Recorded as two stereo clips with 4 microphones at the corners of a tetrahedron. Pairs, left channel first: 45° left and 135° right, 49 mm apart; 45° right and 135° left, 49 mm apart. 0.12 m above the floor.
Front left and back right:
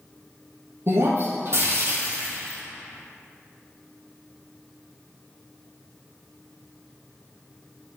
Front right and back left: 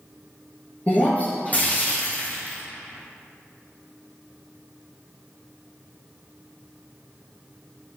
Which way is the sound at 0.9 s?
105° right.